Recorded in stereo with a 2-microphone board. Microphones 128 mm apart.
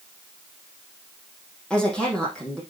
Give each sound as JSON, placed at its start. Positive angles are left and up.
{"t": 1.7, "sound": "a woman speaking", "side_deg": 10, "distance_m": 5.0}